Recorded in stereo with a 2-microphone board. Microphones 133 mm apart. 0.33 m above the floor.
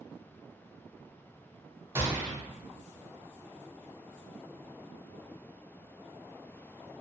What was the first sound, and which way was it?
A gunshot, 20° right (ahead or behind).